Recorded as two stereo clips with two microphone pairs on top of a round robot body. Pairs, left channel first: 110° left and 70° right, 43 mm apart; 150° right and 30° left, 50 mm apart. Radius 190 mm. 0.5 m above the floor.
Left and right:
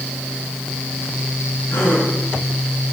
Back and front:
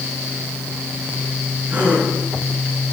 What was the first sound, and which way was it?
A gasp, 90° left.